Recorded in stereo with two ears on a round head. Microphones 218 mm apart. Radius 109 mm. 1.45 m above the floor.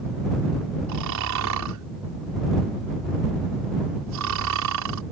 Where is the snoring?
75° right (ahead or behind).